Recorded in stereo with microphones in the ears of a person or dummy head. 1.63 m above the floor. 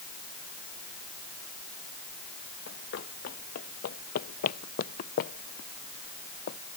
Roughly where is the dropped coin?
No dropped coin in this recording.